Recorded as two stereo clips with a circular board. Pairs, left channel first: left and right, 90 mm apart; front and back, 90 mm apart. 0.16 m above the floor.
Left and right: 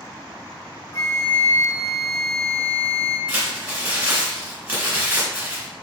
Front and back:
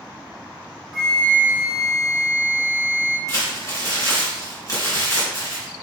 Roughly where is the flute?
Left.